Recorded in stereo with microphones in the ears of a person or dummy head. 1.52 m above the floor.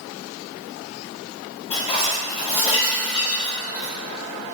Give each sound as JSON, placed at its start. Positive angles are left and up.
{"t": 1.7, "sound": "dishes clattering", "side_deg": 30, "distance_m": 1.2}